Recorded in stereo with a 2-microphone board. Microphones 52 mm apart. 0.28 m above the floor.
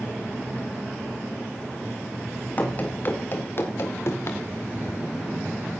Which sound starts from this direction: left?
Running footsteps, at 2.6 s.